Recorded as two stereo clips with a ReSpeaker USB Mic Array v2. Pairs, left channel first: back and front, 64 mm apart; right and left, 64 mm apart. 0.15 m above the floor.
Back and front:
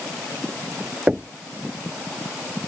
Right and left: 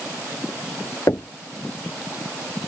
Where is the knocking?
70° right.